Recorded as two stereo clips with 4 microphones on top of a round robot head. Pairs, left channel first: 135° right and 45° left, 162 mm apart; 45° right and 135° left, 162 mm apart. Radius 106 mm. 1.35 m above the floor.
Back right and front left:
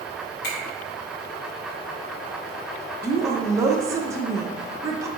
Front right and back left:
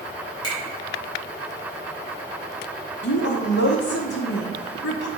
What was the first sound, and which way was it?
A finger snap, 110° right.